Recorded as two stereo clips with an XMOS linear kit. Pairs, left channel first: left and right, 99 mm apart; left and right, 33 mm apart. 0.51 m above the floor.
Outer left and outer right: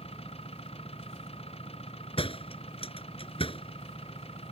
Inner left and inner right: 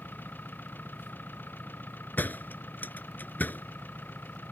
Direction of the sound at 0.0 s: 80° left.